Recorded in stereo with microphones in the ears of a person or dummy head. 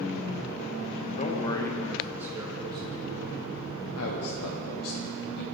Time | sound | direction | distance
1.2 | a man speaking | 40° left (ahead or behind) | 1.2 m
4.0 | a man speaking | 80° left | 1.1 m